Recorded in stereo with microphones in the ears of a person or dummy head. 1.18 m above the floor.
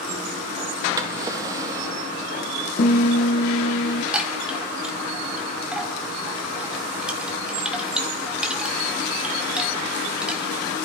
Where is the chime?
5° right (ahead or behind), 1.4 m.